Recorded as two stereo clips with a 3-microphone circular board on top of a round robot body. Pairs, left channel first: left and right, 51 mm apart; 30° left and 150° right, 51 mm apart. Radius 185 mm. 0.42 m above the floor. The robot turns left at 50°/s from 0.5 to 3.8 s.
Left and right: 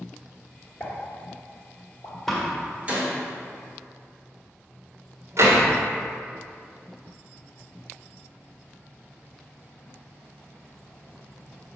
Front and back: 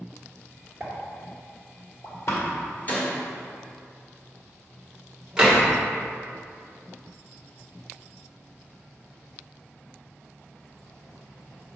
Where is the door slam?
5° left, 1.9 m; by 5.7 s 70° right, 1.9 m.